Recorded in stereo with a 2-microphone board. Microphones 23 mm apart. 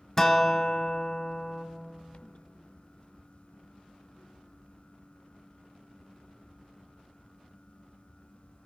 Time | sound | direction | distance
0.2 | a guitar | 10° left (ahead or behind) | 0.6 m